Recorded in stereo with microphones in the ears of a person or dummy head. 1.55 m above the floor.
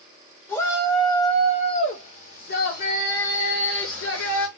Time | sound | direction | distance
0.5 | a shout | 15° left (ahead or behind) | 1.7 m